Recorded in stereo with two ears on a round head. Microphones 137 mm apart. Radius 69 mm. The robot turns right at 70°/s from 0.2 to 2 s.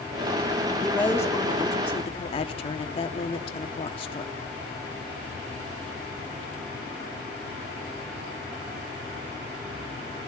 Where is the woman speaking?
5° left, 1.1 m; by 4.3 s 85° left, 1.1 m.